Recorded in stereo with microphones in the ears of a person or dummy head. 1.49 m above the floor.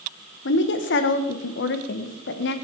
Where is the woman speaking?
65° left (ahead or behind), 1.1 m.